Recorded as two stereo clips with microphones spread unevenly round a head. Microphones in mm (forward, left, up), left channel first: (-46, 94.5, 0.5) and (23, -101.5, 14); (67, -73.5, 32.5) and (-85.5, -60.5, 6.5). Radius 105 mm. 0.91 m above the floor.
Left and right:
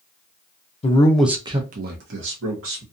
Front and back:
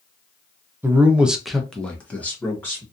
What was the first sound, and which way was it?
A man speaking, 130° left.